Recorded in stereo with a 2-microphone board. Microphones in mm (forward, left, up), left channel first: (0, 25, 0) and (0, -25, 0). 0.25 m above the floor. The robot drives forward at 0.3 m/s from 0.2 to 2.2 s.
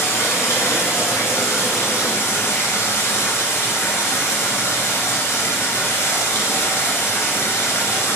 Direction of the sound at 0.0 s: 75° left (ahead or behind).